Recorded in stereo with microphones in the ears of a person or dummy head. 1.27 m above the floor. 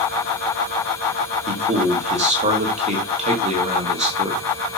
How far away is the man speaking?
About 2 m.